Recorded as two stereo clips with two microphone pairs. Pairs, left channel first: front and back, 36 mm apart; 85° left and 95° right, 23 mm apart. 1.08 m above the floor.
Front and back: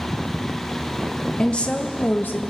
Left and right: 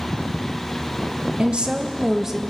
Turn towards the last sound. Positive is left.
turn(degrees=-20)